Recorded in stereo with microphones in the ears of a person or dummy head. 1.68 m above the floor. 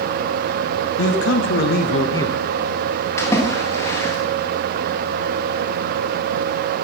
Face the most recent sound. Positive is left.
turn(degrees=20)  # may be behind; listen again after turning